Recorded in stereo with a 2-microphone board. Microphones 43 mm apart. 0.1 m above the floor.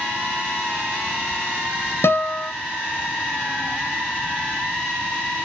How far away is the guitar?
About 1.4 m.